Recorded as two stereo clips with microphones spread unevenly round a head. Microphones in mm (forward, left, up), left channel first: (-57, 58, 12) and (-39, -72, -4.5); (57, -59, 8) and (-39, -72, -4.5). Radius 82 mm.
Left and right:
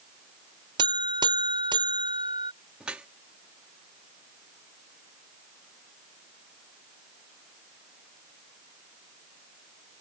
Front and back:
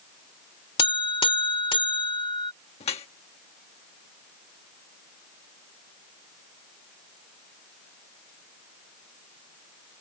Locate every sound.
0.8 s a buzzer: 15° right
2.8 s dripping: straight ahead